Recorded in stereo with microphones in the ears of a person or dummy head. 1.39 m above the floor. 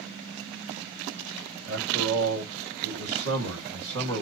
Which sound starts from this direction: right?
A man speaking, at 1.6 s.